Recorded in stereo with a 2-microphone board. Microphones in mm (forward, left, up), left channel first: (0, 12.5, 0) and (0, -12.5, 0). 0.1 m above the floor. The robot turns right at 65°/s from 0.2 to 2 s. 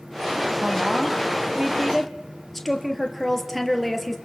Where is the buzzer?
I don't hear a buzzer.